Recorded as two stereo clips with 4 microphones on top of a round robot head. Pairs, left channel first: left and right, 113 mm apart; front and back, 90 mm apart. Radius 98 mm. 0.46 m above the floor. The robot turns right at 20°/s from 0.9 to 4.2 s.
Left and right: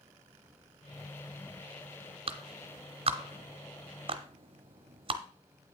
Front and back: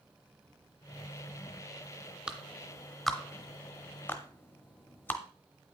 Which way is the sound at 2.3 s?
105° right.